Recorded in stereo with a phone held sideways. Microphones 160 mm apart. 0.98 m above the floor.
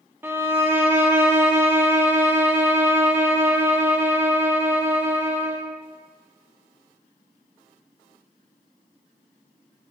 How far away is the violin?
About 0.6 m.